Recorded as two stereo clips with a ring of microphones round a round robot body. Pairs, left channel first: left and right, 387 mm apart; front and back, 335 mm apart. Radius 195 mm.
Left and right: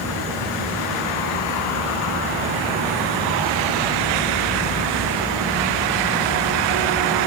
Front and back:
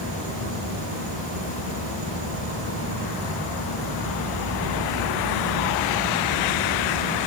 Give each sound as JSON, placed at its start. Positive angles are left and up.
{"t": 0.0, "sound": "an insect", "azimuth_deg": -150, "distance_m": 9.5}